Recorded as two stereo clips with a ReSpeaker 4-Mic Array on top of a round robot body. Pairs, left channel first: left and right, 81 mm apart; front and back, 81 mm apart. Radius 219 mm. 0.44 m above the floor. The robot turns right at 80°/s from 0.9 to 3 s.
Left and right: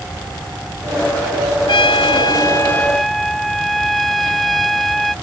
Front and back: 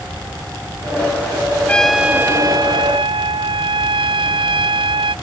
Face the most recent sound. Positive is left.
turn(degrees=180)